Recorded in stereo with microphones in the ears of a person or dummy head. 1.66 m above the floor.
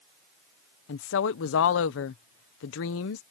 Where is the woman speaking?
70° left (ahead or behind).